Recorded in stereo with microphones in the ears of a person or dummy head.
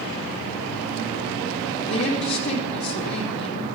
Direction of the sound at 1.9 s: 75° left (ahead or behind).